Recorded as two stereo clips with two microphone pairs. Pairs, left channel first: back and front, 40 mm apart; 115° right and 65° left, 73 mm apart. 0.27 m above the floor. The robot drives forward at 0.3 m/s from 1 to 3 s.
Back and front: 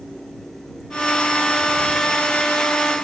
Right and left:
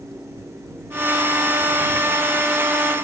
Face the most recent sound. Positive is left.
No sound to turn to.